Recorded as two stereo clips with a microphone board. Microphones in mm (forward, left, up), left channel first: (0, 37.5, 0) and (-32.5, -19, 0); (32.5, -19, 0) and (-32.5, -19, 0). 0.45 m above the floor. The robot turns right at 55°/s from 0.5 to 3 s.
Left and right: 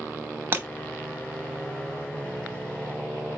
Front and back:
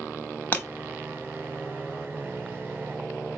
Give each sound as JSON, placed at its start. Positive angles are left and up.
{"t": 0.5, "sound": "breaking glass", "azimuth_deg": -65, "distance_m": 0.9}